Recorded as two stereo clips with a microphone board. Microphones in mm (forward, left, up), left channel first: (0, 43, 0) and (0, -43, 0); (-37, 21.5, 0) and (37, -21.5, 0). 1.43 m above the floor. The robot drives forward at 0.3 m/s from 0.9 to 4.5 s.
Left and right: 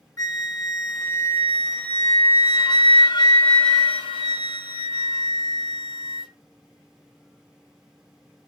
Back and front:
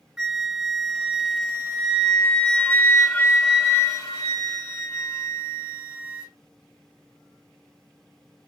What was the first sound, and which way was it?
A flute, 55° left.